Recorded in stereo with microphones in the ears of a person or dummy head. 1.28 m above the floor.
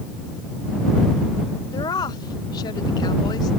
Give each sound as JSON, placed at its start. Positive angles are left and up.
{"t": 1.7, "sound": "a woman speaking", "side_deg": 25}